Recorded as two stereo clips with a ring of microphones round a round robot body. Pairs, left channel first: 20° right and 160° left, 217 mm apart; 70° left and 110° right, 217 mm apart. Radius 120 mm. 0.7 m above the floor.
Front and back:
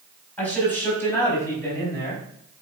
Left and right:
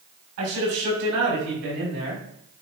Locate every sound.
0.4 s a man speaking: 105° right, 5 m; by 2.2 s 95° right, 4.5 m